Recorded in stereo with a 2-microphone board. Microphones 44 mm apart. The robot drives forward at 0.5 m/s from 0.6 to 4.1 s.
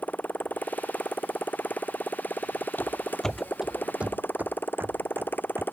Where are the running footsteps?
45° left (ahead or behind); by 5.6 s 65° right (ahead or behind).